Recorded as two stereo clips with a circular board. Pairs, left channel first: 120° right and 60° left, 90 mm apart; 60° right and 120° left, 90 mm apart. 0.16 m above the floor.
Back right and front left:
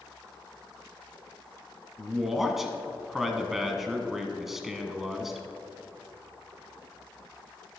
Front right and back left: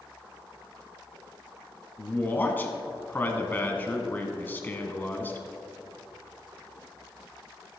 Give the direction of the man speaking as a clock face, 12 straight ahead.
1 o'clock.